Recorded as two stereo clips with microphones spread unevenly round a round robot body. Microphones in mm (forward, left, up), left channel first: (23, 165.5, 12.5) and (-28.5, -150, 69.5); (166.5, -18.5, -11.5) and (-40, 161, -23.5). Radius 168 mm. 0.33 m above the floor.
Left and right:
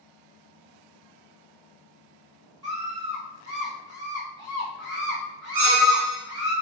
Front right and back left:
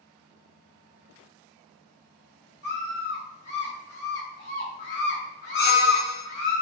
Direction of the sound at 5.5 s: 80° right.